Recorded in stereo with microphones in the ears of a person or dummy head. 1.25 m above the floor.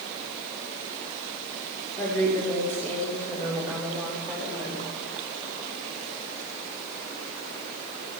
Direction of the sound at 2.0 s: 15° left (ahead or behind).